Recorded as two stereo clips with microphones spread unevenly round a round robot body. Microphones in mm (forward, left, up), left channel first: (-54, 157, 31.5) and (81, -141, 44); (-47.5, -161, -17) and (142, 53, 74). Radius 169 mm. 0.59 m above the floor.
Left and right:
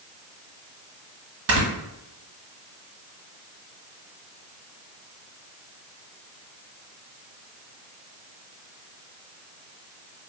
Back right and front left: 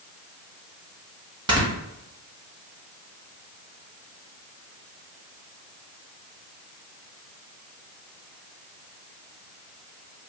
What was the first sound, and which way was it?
Snoring, 40° right.